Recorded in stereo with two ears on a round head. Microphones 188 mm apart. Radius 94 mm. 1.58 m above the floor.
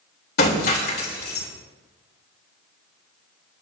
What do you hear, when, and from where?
0.4 s breaking glass: 50° left (ahead or behind), 3 m